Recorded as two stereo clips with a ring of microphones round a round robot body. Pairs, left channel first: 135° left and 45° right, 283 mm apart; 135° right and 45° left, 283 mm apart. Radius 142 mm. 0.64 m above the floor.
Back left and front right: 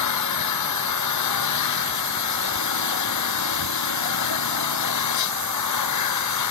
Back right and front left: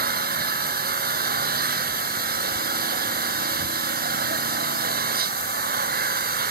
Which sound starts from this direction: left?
An engine running, at 0.0 s.